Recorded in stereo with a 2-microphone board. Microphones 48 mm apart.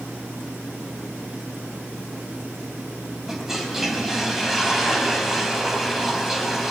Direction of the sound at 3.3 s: 5° right (ahead or behind).